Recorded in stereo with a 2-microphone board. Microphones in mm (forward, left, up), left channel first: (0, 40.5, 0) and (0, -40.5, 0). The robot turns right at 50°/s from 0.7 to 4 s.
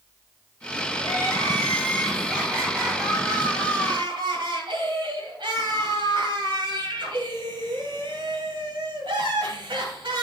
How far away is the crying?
About 2.5 m.